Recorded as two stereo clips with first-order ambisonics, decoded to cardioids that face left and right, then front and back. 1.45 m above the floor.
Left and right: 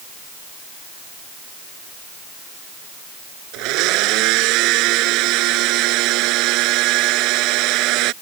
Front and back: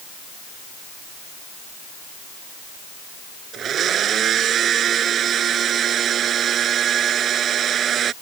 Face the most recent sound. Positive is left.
turn(degrees=-120)